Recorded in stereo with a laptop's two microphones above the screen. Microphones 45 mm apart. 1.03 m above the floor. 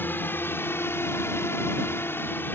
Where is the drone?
50° left (ahead or behind).